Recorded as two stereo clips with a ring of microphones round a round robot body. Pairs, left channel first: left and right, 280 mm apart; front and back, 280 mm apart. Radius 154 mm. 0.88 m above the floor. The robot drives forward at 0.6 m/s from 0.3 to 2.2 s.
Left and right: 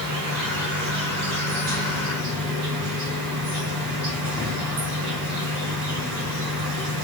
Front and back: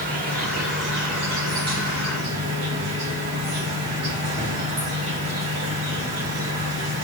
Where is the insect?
120° right, 1.5 m; by 7.0 s 145° right, 2.5 m.